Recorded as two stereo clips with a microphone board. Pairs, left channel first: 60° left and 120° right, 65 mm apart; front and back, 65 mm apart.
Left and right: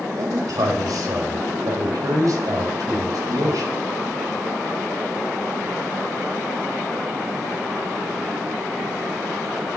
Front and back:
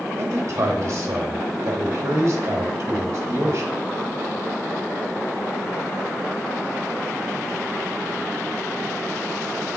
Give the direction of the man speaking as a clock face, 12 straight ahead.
5 o'clock.